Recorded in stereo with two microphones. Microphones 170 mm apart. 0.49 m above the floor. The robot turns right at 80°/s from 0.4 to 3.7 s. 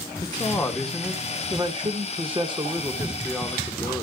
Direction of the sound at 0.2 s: 135° left.